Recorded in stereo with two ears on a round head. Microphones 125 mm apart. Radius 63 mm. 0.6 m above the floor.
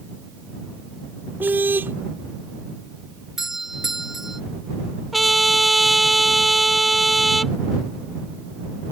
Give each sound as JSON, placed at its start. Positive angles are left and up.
{"t": 1.4, "sound": "a car horn", "side_deg": -15}
{"t": 3.4, "sound": "a doorbell", "side_deg": -5}
{"t": 5.1, "sound": "a trumpet", "side_deg": 0}